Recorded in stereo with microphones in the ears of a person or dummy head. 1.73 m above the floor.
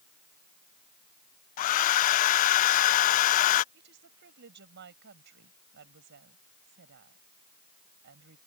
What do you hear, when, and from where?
1.6 s a hair dryer: 45° left (ahead or behind)
3.7 s a woman speaking: 60° right (ahead or behind)